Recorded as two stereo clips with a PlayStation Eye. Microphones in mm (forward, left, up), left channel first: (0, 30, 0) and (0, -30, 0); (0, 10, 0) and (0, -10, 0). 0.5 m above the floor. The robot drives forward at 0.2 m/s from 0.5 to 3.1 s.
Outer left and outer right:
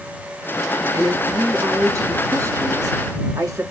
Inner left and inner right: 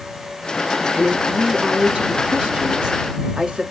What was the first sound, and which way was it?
A woman speaking, 55° right (ahead or behind).